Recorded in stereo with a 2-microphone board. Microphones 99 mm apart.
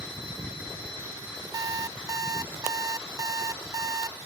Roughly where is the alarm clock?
Right.